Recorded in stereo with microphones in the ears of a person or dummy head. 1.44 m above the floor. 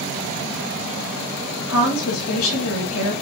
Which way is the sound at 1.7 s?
85° left.